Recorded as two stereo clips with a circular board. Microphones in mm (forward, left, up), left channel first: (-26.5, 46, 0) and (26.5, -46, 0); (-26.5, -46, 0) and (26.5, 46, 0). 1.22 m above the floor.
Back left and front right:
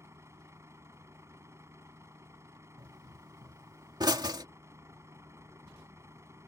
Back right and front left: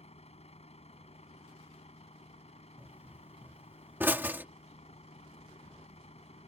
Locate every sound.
0.0 s a vehicle: 125° right
2.8 s a pop: 10° right